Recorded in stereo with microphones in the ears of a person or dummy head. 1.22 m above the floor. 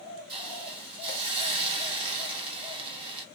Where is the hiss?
30° right (ahead or behind), 1.6 m.